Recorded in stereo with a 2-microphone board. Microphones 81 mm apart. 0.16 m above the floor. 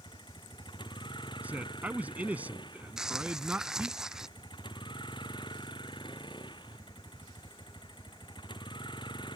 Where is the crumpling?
5° right (ahead or behind).